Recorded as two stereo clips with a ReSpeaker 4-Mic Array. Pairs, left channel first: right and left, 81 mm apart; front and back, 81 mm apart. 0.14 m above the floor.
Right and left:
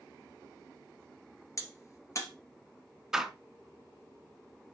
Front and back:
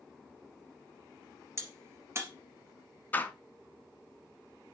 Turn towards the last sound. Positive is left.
turn(degrees=20)